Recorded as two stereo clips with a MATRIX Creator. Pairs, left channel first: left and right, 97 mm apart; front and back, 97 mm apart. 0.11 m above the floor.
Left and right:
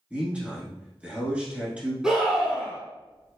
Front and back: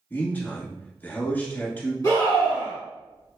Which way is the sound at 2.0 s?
15° right.